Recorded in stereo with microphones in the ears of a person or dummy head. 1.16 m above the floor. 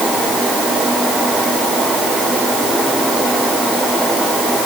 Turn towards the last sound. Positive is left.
No sound to turn to.